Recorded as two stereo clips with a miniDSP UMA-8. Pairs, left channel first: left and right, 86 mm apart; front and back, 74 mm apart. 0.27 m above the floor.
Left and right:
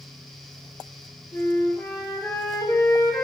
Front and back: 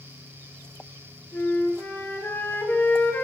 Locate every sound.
1.3 s a flute: 60° left, 2 m